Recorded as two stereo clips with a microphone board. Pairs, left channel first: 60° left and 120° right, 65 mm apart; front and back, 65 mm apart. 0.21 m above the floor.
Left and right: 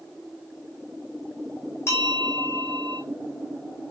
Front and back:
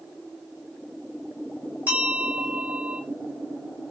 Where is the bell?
110° left, 1.9 m.